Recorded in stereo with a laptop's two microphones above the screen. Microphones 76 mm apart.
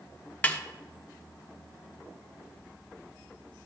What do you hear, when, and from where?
0.4 s a snare drum: 20° left (ahead or behind), 0.9 m